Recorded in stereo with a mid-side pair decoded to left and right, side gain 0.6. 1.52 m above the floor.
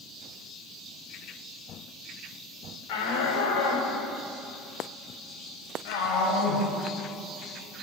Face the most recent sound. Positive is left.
turn(degrees=70)